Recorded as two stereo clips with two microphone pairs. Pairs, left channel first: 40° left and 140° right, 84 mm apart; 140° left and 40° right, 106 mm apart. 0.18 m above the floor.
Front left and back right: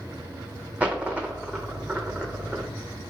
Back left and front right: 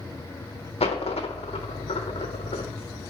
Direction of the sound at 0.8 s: 145° left.